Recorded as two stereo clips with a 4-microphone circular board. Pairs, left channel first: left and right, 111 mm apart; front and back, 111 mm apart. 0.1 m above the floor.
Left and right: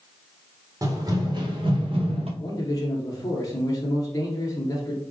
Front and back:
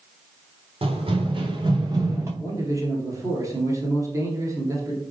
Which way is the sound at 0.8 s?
145° right.